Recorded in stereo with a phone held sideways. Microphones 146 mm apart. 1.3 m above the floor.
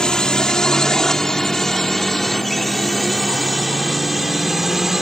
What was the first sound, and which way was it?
A drone, 5° left (ahead or behind).